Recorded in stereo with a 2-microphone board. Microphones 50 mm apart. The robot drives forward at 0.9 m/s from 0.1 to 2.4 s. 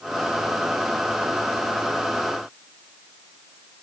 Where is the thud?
No thud in this recording.